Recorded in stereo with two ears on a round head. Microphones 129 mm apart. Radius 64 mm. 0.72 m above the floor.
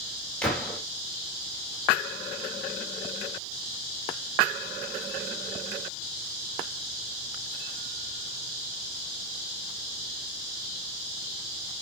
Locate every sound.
0.4 s a gunshot: 5° left (ahead or behind), 1.9 m